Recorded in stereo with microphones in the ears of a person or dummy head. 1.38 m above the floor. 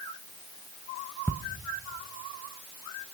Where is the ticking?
10° left (ahead or behind), 0.8 m.